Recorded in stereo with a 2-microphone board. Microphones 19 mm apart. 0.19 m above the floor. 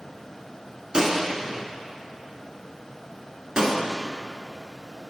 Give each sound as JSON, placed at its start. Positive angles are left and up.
{"t": 0.9, "sound": "a gunshot", "side_deg": -45, "distance_m": 1.6}